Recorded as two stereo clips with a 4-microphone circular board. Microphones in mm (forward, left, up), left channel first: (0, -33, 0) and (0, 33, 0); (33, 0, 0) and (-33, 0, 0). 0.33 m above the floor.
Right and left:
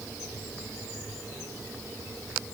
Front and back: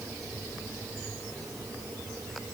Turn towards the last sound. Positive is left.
No sound to turn to.